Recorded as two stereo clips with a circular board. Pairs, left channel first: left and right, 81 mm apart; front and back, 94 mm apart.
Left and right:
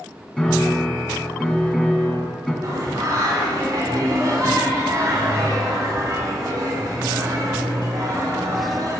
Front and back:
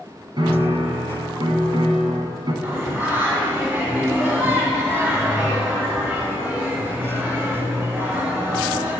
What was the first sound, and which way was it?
A piano, 165° left.